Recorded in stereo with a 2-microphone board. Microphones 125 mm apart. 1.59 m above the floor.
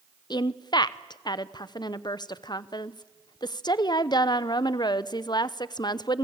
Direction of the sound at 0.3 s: 40° left (ahead or behind).